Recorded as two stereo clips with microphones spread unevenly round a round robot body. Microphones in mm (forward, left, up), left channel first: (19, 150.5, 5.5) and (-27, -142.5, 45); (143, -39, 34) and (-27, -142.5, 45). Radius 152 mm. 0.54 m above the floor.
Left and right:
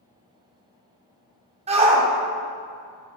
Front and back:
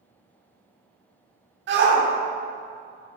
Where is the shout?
170° right, 1.3 m.